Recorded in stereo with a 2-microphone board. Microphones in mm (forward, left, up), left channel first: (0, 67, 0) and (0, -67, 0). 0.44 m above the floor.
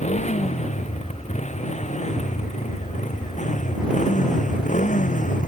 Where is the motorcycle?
60° left (ahead or behind); by 5.5 s 70° left (ahead or behind).